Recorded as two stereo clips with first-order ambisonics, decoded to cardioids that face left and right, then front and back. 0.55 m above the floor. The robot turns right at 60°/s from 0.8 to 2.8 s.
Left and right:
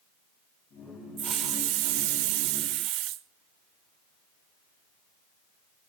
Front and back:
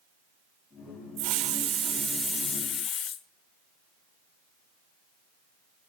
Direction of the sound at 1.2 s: 155° right.